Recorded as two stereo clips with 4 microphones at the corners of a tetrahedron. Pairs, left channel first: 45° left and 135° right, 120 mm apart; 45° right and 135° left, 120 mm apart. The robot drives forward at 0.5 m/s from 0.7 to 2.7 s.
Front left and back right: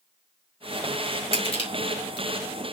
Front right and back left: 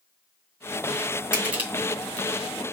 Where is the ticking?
No ticking in this recording.